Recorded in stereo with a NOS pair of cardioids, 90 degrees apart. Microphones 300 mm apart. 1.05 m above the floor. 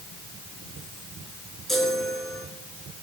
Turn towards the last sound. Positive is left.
turn(degrees=0)